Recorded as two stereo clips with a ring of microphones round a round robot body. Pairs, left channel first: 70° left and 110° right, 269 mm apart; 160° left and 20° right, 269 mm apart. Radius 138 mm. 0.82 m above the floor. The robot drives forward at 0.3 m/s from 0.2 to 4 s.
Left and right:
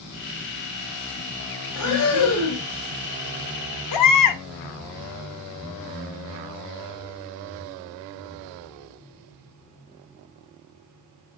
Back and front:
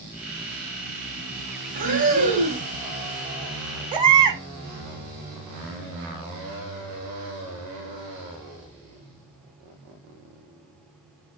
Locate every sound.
1.8 s breathing: 35° left, 1.3 m; by 2.7 s 45° left, 1.1 m
3.9 s a baby crying: 50° left, 0.6 m